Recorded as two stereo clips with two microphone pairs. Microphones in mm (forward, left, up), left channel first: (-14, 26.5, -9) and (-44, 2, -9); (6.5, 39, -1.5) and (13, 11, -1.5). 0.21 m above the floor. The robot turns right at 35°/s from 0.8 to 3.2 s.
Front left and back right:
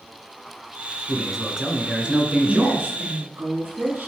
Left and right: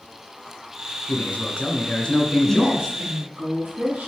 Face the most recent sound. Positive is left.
turn(degrees=-120)